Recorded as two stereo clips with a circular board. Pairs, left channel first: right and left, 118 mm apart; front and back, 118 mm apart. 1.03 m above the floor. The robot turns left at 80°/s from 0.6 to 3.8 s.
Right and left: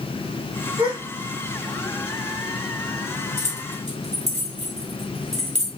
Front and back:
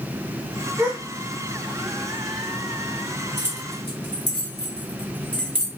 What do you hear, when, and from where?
0.8 s a gasp: 115° left, 0.8 m; by 1.0 s 100° left, 0.8 m
3.4 s keys jangling: 110° left, 1.2 m; by 5.7 s 75° left, 1.2 m